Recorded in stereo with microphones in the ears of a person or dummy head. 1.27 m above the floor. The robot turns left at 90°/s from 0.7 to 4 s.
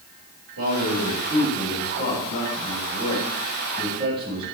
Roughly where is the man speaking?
Right.